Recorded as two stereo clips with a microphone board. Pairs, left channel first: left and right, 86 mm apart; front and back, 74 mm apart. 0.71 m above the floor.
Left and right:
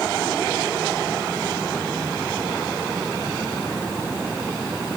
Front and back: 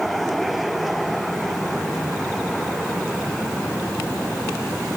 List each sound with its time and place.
Only background noise.